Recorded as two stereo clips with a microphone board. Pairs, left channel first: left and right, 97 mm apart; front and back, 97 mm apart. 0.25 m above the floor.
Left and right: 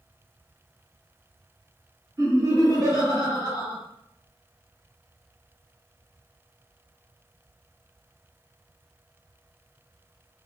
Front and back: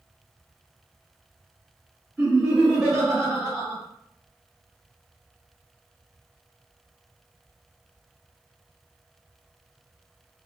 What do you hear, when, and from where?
2.2 s laughter: 100° right, 1.6 m